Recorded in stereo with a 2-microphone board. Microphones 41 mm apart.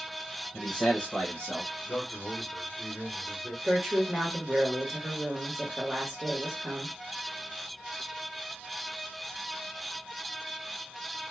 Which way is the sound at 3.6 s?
10° right (ahead or behind).